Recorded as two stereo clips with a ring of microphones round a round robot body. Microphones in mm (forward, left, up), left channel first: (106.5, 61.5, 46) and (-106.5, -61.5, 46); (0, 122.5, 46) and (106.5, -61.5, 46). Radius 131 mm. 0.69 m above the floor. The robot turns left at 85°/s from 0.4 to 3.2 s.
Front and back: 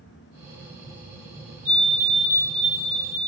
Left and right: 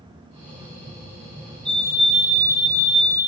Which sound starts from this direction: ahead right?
A fire alarm, at 1.6 s.